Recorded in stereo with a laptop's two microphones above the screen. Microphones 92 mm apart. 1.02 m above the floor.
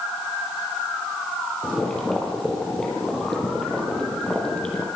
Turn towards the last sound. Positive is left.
turn(degrees=5)  # may be behind; listen again after turning